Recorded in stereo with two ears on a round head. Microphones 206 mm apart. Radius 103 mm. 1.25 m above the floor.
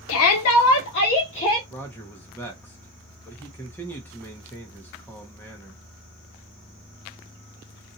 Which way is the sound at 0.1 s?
65° left (ahead or behind).